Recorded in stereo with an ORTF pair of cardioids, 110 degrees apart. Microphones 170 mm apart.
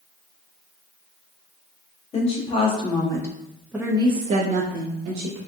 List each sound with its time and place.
2.1 s a woman speaking: 40° left, 1.2 m; by 5.4 s 75° right, 1.0 m